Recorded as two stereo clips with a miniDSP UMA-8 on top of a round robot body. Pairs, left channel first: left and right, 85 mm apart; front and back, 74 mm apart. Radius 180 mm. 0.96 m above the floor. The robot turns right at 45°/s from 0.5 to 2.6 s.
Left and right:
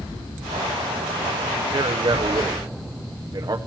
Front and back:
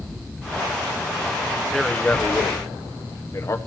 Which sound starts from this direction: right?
A man speaking, at 1.7 s.